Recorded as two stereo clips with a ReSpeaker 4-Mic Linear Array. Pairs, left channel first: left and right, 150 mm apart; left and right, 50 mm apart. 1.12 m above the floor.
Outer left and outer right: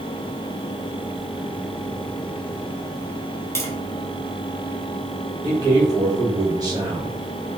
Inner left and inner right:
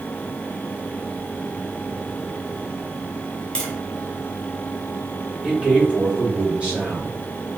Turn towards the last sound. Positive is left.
turn(degrees=-25)  # may be behind; listen again after turning